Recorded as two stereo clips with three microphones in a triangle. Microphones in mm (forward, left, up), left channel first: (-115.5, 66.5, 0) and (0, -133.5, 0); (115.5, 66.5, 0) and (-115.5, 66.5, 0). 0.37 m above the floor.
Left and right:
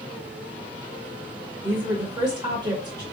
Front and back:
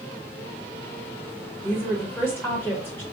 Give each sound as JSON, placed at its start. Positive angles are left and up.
{"t": 1.6, "sound": "a woman speaking", "azimuth_deg": -60, "distance_m": 0.9}